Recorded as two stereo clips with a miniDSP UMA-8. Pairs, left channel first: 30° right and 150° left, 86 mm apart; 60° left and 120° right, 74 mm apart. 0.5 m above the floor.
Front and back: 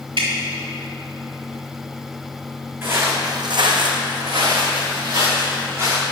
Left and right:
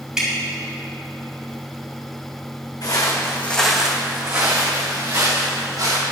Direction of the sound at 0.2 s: 160° left.